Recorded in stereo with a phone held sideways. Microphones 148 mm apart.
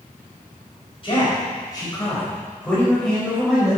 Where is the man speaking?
35° left (ahead or behind), 5 m; by 3.8 s 5° right (ahead or behind), 4.5 m.